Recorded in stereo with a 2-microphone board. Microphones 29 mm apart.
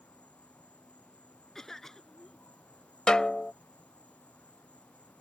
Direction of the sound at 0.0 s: 55° left (ahead or behind).